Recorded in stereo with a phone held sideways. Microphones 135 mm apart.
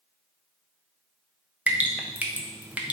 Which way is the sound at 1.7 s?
10° right (ahead or behind).